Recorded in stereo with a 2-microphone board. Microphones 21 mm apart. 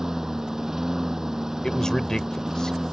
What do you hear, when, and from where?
0.0 s a lawn mower: 20° right (ahead or behind)
1.6 s a man speaking: 30° left (ahead or behind)